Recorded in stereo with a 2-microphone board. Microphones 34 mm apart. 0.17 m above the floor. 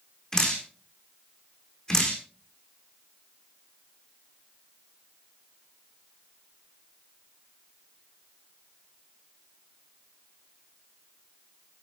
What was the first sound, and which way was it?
Dripping, 15° left (ahead or behind).